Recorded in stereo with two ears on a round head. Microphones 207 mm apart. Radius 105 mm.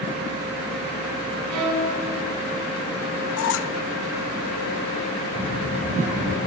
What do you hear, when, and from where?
1.5 s a violin: 90° right, 6.5 m
3.4 s a squeak: 60° left (ahead or behind), 0.5 m
5.3 s a child speaking: 40° right (ahead or behind), 7 m